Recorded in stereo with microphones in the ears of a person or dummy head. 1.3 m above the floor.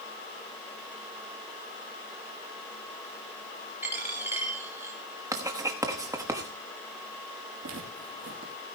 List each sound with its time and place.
3.8 s a dropped coin: 10° right (ahead or behind), 2.5 m
5.3 s writing: 15° right (ahead or behind), 1.2 m
7.6 s footsteps: 45° right (ahead or behind), 2.5 m